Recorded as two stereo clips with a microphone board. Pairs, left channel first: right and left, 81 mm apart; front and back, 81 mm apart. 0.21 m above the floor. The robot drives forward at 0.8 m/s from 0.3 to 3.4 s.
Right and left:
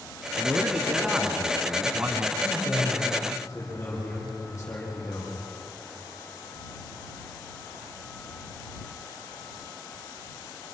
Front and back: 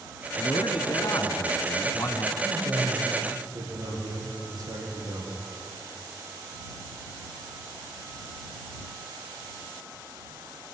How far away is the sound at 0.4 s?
About 3 m.